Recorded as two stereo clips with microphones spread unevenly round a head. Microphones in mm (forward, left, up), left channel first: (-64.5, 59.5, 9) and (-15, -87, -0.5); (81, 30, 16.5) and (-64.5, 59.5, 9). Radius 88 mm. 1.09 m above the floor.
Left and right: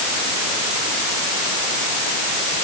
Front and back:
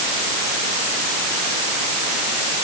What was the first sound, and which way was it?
Only background noise.